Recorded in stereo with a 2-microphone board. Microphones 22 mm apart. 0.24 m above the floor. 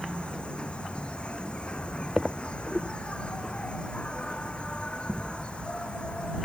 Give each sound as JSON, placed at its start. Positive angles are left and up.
{"t": 0.0, "sound": "an insect", "side_deg": 55}